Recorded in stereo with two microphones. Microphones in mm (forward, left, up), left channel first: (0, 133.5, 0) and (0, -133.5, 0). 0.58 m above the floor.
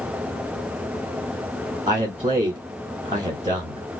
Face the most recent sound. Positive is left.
turn(degrees=-25)  # may be behind; listen again after turning